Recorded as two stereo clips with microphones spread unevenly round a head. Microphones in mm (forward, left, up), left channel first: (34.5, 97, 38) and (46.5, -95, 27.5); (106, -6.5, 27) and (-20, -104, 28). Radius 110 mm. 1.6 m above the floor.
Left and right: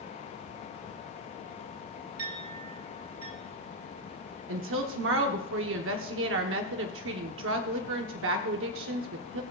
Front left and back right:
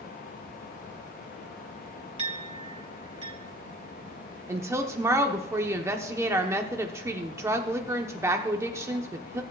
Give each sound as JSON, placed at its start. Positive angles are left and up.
{"t": 2.2, "sound": "a clink", "azimuth_deg": -95, "distance_m": 2.5}
{"t": 4.5, "sound": "a woman speaking", "azimuth_deg": -70, "distance_m": 1.0}